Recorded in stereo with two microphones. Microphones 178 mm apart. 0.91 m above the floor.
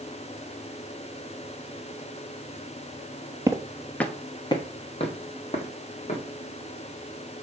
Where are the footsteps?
20° right (ahead or behind), 0.9 m; by 6.2 s 40° left (ahead or behind), 3 m.